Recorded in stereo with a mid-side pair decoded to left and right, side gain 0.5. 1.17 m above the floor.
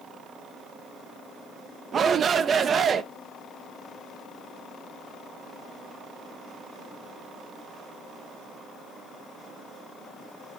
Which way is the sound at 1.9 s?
45° right.